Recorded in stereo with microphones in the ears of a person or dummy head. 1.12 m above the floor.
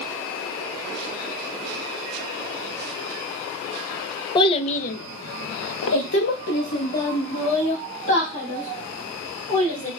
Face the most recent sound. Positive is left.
turn(degrees=35)  # may be behind; listen again after turning